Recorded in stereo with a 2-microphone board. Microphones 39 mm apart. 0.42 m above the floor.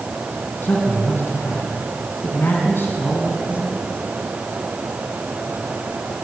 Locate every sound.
0.6 s a man speaking: 70° left (ahead or behind), 3.5 m